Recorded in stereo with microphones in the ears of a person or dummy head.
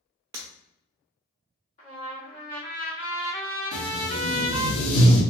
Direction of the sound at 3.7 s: 65° left (ahead or behind).